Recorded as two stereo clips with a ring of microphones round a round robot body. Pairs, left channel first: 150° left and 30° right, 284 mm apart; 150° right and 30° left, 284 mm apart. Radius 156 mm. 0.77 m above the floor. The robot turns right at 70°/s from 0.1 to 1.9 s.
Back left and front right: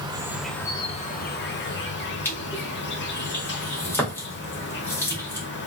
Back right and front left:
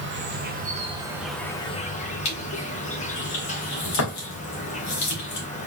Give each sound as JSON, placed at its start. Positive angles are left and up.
{"t": 0.0, "sound": "an insect", "azimuth_deg": 35, "distance_m": 1.1}
{"t": 2.2, "sound": "crushing", "azimuth_deg": -130, "distance_m": 2.0}